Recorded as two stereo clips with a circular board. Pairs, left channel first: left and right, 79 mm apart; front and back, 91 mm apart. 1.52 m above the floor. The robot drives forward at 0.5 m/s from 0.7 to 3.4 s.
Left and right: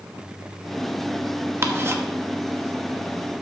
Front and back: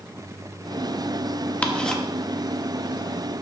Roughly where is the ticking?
Ahead right.